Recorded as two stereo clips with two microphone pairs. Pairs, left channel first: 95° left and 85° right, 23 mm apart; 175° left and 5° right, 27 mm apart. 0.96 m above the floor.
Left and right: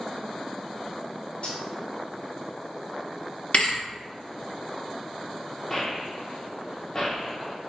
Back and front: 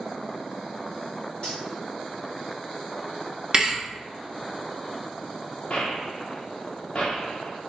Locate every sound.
1.4 s cutlery clinking: 135° left, 1.6 m
3.5 s a thud: 60° left, 0.7 m
5.7 s a gunshot: 160° left, 0.7 m